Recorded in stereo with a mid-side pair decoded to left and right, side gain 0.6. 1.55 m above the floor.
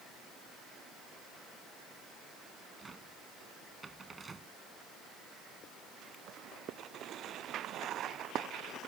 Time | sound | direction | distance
2.8 | a cupboard door | 25° right | ?